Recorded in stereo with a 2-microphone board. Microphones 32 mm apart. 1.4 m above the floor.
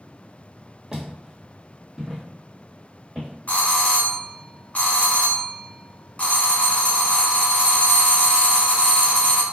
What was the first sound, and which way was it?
Footsteps, 20° right (ahead or behind).